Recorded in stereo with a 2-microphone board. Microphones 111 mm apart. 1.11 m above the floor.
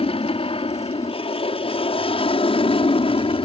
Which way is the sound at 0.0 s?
60° left (ahead or behind).